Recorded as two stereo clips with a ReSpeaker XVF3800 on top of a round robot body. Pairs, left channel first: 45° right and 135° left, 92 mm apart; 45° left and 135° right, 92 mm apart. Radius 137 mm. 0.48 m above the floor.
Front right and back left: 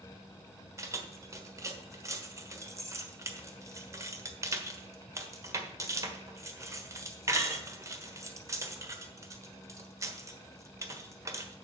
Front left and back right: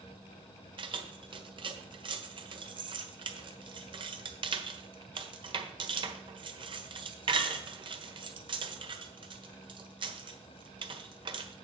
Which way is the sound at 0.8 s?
165° right.